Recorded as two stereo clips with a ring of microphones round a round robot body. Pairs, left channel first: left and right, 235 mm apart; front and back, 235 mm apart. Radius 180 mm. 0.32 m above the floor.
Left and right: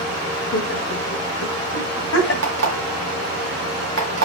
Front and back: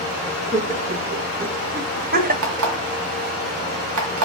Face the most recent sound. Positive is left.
turn(degrees=-140)